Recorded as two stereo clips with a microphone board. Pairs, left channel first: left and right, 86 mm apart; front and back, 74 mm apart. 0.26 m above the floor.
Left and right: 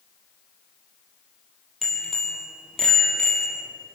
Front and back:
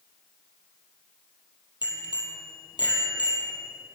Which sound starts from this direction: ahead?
A bicycle bell, at 1.8 s.